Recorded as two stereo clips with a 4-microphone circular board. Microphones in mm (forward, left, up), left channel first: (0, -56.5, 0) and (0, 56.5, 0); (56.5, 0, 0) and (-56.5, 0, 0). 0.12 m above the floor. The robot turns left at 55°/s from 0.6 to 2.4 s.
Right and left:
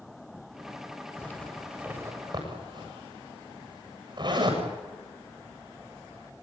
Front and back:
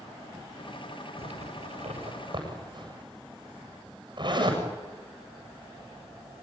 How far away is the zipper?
About 8 m.